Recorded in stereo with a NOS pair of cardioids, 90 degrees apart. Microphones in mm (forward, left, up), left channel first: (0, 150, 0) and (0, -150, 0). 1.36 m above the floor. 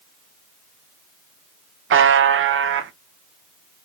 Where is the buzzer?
40° right, 0.5 m.